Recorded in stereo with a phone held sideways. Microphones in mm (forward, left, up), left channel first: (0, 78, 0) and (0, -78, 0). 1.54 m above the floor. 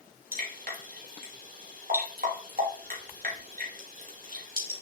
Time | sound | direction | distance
0.3 | dripping | 70° right (ahead or behind) | 2.5 m